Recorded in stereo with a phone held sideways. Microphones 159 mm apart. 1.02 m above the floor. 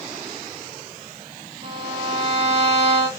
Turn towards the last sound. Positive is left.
turn(degrees=-40)  # may be behind; listen again after turning